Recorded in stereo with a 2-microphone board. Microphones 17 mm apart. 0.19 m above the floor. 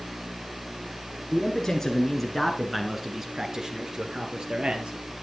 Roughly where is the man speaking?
Left.